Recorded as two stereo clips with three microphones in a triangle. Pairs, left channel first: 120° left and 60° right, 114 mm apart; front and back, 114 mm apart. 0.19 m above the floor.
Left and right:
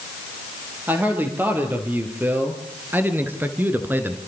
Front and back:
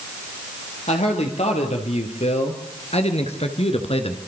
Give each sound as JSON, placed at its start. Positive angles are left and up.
{"t": 0.9, "sound": "a man speaking", "azimuth_deg": 10, "distance_m": 5.0}